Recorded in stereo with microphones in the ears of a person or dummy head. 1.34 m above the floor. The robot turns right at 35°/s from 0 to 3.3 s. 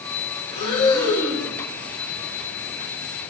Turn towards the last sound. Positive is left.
turn(degrees=-115)